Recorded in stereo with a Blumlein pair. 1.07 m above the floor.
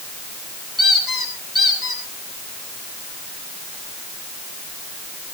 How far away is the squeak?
About 8.5 m.